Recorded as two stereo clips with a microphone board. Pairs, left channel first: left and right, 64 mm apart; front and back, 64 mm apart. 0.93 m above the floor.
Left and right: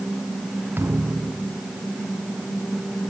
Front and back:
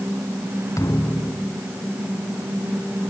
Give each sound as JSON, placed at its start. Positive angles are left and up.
{"t": 0.8, "sound": "a thud", "azimuth_deg": -35}